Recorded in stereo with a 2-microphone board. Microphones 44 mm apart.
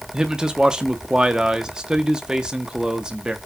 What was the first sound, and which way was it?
A man speaking, 20° right (ahead or behind).